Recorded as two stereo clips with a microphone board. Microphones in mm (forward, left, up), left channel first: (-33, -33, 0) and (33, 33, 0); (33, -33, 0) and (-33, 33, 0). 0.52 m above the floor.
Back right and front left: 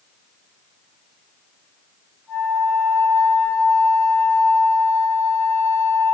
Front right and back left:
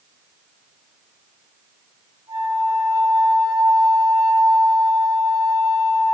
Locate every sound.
2.3 s a flute: 155° left, 2.5 m